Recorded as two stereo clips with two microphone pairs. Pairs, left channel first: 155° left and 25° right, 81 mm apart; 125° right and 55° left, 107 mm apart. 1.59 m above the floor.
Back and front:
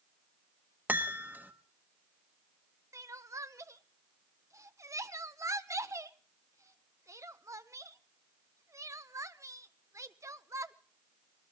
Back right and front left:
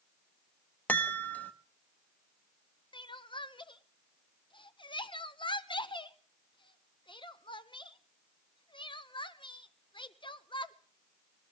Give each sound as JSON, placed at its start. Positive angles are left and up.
{"t": 0.9, "sound": "a chime", "azimuth_deg": -60, "distance_m": 1.0}
{"t": 2.9, "sound": "crying", "azimuth_deg": -80, "distance_m": 0.7}